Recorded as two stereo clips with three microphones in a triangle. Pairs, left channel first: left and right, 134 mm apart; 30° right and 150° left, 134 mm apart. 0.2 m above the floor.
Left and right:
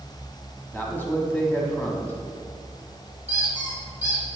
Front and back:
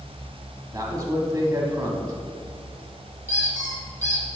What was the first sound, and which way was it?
A man speaking, 145° left.